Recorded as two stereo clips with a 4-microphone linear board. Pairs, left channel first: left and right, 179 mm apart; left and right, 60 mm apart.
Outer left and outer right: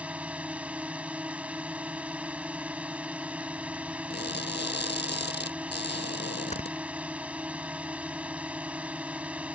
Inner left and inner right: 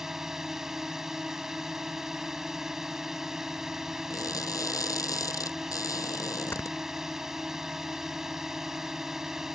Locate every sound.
0.0 s a drone: 10° right (ahead or behind)
4.1 s crushing: 75° left (ahead or behind)
6.5 s snoring: 40° left (ahead or behind)